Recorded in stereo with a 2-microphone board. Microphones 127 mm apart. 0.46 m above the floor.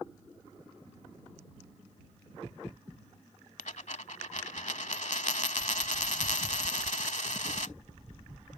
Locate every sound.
3.6 s a dropped coin: 70° left (ahead or behind)